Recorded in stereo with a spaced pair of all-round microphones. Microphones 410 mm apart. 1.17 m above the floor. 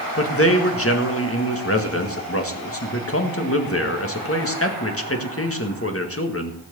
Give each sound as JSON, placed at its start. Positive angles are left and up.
{"t": 0.2, "sound": "a man speaking", "side_deg": 35, "distance_m": 1.8}